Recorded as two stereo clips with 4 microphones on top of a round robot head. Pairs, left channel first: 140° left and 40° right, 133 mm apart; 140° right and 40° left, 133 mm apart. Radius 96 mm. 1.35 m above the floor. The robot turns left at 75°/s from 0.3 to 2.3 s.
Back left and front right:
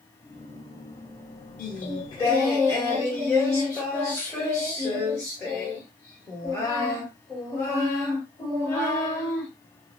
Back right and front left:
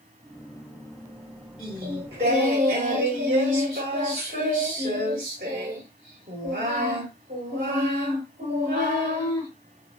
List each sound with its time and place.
1.6 s singing: 125° left, 1.3 m; by 9.5 s 75° left, 1.3 m